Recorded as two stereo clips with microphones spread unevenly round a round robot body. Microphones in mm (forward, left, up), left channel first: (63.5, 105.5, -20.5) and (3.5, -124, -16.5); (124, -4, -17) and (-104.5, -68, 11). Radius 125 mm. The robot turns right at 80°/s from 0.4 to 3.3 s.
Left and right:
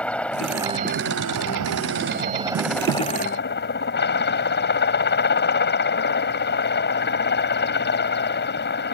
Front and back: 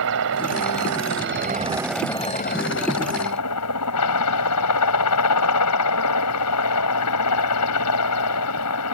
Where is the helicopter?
160° left; by 8.9 s 35° left.